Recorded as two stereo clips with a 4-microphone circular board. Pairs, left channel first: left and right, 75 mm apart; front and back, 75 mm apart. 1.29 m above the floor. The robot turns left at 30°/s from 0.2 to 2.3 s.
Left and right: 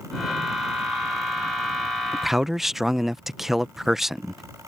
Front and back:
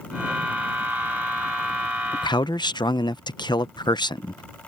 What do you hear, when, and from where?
2.1 s a man speaking: straight ahead; by 4.4 s 5° right